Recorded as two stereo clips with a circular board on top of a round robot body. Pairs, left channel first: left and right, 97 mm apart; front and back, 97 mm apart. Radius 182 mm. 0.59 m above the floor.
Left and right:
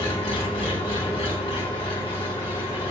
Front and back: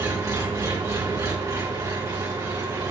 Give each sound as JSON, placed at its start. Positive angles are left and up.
{"t": 0.0, "sound": "an engine running", "azimuth_deg": 115, "distance_m": 2.5}